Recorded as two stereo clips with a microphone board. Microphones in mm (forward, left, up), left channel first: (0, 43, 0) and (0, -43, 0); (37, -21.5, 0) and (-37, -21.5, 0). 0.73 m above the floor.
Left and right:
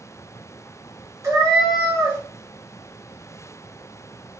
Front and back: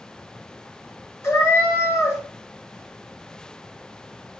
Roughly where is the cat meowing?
Ahead right.